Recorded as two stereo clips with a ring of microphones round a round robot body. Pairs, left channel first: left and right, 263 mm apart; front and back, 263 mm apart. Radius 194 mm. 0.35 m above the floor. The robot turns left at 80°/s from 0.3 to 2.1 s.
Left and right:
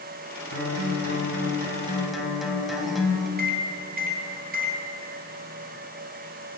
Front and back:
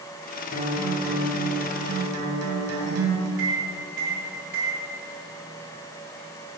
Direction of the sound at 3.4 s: 140° right.